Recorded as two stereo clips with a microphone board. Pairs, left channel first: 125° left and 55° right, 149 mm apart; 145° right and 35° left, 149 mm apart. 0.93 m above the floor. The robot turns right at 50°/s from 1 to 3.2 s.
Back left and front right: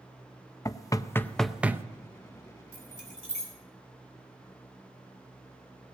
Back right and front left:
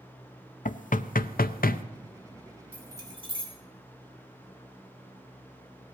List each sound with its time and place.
0.7 s knocking: 170° right, 0.5 m; by 1.8 s 125° right, 0.5 m
2.7 s keys jangling: 45° right, 3.5 m; by 3.5 s 20° right, 3.5 m